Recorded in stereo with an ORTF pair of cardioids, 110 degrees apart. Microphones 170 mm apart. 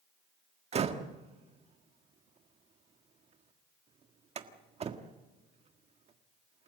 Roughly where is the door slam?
Ahead right.